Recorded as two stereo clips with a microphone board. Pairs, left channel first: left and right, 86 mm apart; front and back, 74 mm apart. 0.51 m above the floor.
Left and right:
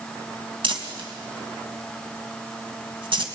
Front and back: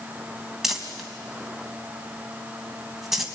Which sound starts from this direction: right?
Crumpling, at 0.6 s.